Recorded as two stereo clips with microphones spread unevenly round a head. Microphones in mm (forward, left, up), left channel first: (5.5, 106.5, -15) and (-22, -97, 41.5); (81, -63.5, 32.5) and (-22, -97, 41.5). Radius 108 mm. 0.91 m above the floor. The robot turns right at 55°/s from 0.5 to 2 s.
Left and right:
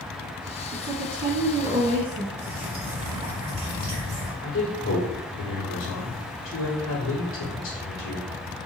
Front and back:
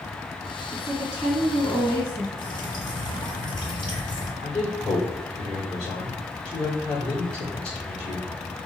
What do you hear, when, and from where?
0.7 s a woman speaking: 120° right, 1.7 m; by 2.3 s 50° right, 1.7 m
2.4 s dripping: 30° right, 1.8 m
4.4 s a man speaking: 65° left, 2 m